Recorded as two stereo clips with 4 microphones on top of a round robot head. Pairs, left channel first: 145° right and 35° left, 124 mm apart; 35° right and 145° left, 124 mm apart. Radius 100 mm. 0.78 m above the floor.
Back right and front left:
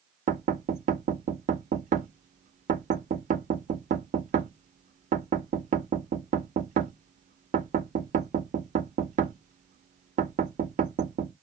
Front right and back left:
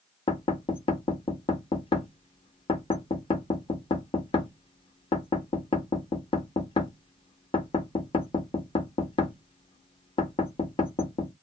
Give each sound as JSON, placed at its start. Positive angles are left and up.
{"t": 0.3, "sound": "knocking", "azimuth_deg": 15, "distance_m": 0.7}